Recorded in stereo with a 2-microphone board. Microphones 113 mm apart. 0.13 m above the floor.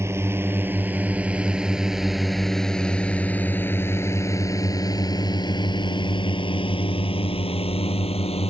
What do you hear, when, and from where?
0.0 s a drone: 25° right (ahead or behind); by 8.5 s 60° left (ahead or behind)